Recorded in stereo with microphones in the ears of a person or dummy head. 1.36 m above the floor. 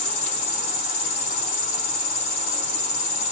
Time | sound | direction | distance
0.0 | an insect | 45° left (ahead or behind) | 1.9 m